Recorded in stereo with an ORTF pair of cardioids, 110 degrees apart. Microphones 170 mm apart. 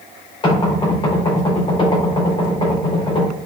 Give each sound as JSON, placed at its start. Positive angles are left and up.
{"t": 0.4, "sound": "knocking", "azimuth_deg": 30, "distance_m": 4.0}